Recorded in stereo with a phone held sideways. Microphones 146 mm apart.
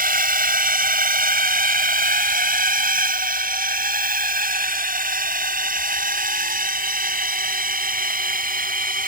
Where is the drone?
70° right (ahead or behind).